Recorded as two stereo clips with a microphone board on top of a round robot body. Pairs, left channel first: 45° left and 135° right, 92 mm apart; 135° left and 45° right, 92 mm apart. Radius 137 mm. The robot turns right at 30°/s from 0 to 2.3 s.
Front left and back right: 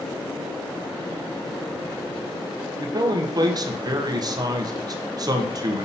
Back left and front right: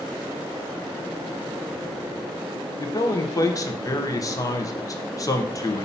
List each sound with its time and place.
2.8 s a man speaking: 175° right, 1.1 m